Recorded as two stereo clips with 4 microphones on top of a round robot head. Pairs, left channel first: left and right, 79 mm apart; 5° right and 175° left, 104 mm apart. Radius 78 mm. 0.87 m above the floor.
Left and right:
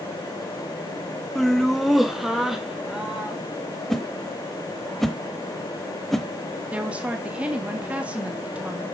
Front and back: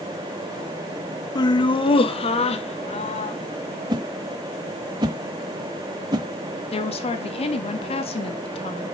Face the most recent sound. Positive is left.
turn(degrees=-15)